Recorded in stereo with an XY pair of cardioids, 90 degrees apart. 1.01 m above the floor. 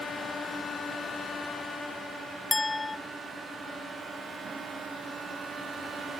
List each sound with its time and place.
2.5 s a clink: 30° left, 0.6 m